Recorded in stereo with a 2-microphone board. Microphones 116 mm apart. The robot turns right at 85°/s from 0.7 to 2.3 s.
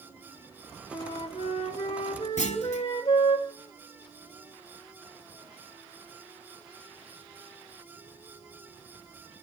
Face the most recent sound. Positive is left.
turn(degrees=85)